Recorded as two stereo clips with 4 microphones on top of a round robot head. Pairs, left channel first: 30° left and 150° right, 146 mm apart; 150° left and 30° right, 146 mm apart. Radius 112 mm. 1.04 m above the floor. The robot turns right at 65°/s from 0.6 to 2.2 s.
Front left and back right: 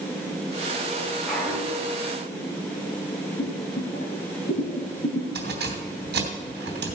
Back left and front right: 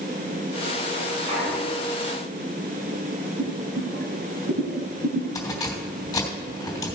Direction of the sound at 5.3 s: 140° right.